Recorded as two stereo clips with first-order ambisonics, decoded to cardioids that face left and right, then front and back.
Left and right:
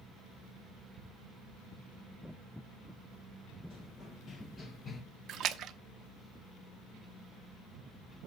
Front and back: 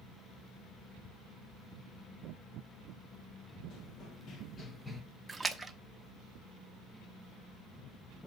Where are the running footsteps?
25° left, 2 m; by 5.0 s 120° left, 1.1 m.